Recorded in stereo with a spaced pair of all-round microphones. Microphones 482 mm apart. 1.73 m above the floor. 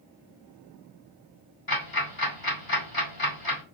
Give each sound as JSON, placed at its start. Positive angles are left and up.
{"t": 1.7, "sound": "ticking", "side_deg": 45, "distance_m": 2.5}